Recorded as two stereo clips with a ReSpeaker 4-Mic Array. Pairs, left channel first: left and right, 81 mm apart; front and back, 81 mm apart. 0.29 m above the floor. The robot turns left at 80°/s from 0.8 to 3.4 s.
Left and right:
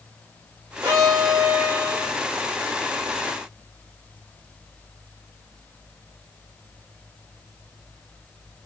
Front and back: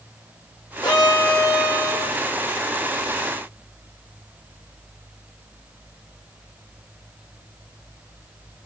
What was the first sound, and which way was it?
A violin, 35° right.